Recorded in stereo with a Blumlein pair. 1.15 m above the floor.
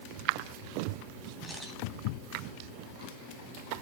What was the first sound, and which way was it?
A camera shutter, 5° left.